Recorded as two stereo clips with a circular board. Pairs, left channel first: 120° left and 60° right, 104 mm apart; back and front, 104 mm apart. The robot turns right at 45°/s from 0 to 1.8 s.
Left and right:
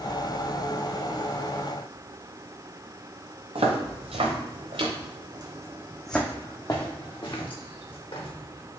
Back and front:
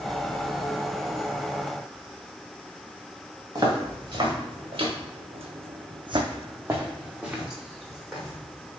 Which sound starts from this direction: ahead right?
Footsteps, at 3.5 s.